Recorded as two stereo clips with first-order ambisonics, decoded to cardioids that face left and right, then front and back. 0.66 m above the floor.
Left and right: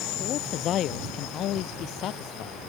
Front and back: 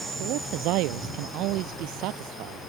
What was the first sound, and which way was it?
A man speaking, 145° left.